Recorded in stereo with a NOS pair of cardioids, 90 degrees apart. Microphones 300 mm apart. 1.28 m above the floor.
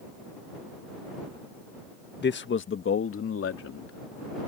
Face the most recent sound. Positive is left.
turn(degrees=50)